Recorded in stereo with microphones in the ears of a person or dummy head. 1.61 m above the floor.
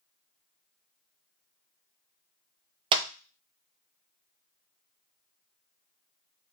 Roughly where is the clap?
Right.